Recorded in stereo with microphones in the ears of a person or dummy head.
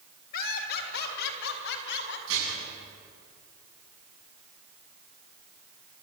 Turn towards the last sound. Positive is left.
turn(degrees=-75)  # may be behind; listen again after turning